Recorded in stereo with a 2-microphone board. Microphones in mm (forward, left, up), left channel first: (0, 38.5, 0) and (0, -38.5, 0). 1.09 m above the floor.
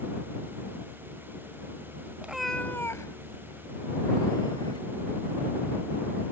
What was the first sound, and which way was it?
A cat meowing, 15° right (ahead or behind).